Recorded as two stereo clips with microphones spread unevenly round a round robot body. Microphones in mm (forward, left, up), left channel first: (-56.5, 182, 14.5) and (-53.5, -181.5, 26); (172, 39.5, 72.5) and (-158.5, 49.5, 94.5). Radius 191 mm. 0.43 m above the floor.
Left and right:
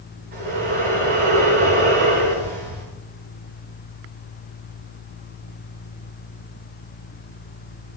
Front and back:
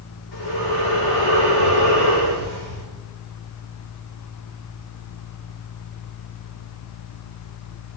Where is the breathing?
20° right, 7.5 m.